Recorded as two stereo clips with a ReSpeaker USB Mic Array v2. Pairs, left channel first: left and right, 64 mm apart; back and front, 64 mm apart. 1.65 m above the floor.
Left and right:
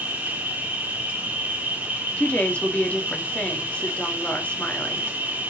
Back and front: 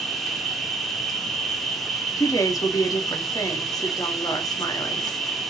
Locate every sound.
0.0 s an insect: 90° right, 1.0 m
2.2 s a woman speaking: 155° left, 1.2 m